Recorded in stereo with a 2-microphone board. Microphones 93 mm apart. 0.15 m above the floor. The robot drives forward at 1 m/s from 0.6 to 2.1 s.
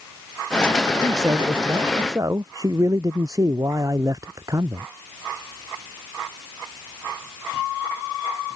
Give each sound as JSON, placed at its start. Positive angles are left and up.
{"t": 1.0, "sound": "a man speaking", "side_deg": -40}